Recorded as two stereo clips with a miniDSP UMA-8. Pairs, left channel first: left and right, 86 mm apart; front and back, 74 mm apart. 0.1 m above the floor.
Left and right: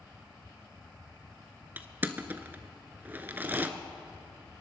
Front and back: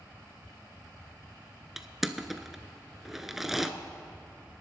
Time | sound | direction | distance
1.8 | crushing | 100° right | 0.7 m